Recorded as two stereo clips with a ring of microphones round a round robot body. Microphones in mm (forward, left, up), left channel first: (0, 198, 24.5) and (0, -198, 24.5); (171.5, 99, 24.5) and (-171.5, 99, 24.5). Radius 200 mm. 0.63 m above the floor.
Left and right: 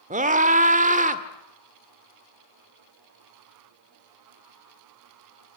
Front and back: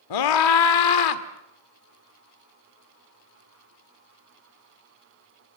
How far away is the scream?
About 1.7 m.